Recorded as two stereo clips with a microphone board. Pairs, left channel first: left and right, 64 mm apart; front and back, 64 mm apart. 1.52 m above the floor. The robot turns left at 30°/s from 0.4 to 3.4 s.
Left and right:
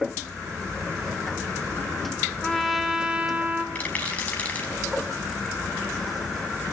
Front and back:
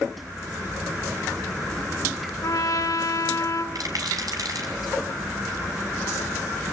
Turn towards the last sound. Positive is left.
turn(degrees=160)